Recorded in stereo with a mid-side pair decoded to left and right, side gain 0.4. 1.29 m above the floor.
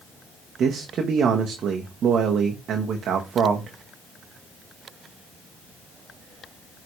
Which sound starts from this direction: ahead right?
A man speaking, at 0.6 s.